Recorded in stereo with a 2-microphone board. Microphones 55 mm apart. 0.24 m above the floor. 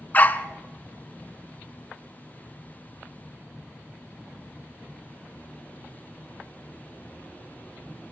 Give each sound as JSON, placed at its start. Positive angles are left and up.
{"t": 0.1, "sound": "a dog barking", "side_deg": 30, "distance_m": 0.8}